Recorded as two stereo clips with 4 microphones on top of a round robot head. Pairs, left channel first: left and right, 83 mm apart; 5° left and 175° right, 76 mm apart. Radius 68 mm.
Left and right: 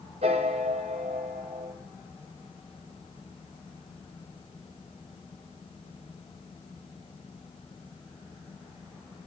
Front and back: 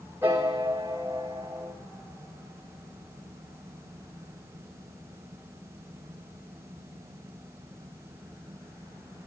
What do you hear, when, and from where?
0.2 s a piano: 105° right, 2.5 m